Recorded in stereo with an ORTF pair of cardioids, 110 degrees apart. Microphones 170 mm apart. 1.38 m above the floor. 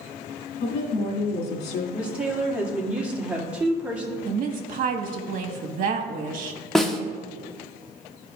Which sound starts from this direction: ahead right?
A woman speaking, at 4.2 s.